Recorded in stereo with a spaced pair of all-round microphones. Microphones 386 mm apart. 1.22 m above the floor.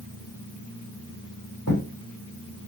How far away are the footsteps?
About 3.5 m.